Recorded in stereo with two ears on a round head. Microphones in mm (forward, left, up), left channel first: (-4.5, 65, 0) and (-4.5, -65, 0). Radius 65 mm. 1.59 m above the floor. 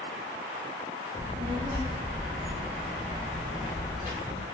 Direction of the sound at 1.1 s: 50° right (ahead or behind).